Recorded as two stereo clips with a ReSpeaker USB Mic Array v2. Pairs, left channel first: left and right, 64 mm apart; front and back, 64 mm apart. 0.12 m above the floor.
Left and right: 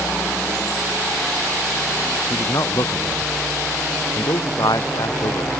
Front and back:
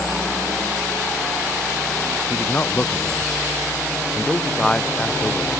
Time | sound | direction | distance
2.3 | a man speaking | 60° left | ?